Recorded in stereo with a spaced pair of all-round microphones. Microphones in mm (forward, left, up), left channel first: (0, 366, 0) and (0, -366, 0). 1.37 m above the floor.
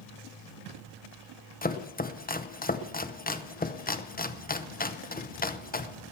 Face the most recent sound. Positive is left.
turn(degrees=15)  # may be behind; listen again after turning